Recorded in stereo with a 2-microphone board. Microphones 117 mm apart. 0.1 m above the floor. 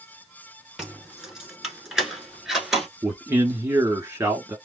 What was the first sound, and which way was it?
Keys jangling, 5° right (ahead or behind).